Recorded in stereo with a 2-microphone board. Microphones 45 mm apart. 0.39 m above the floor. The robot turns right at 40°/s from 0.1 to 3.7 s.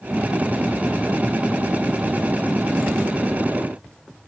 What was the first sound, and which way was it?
Only background noise.